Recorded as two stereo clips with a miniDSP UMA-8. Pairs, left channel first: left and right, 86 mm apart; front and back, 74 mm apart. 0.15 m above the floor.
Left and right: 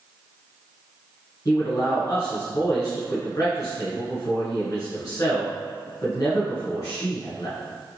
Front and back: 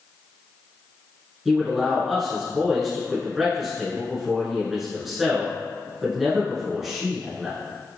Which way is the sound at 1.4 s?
95° left.